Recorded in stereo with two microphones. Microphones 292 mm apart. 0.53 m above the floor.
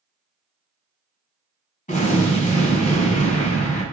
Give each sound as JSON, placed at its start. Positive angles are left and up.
{"t": 1.9, "sound": "an explosion", "side_deg": 25, "distance_m": 1.2}